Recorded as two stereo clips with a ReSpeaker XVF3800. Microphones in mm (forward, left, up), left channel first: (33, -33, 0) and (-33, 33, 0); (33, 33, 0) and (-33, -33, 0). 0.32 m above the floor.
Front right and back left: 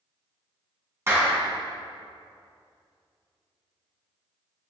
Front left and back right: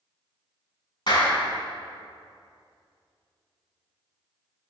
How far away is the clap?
About 3 m.